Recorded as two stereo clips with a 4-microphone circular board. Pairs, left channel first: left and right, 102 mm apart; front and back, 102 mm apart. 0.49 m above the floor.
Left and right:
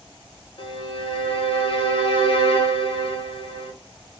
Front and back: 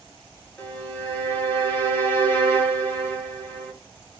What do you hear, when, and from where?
0.6 s a violin: 65° left, 0.9 m